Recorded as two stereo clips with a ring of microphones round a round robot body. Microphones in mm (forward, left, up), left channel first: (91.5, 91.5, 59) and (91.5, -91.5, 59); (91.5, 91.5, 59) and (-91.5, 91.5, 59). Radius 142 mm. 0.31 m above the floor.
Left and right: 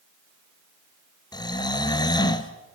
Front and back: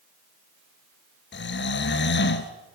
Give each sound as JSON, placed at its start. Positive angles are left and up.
{"t": 1.3, "sound": "snoring", "azimuth_deg": 20, "distance_m": 2.5}